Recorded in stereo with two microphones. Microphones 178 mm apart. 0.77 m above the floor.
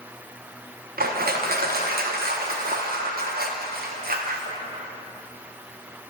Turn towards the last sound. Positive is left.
turn(degrees=-65)  # may be behind; listen again after turning